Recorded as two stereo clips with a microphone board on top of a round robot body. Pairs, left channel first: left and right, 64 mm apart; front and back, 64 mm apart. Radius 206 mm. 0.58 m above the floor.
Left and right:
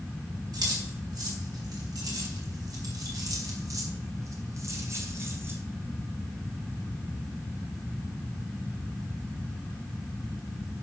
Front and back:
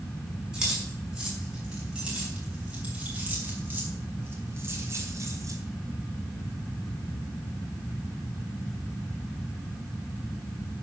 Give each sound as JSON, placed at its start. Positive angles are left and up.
{"t": 0.5, "sound": "keys jangling", "azimuth_deg": -95, "distance_m": 6.0}